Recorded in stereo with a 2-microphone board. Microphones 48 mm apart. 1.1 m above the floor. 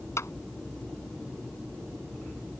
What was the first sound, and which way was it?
A clap, 80° left.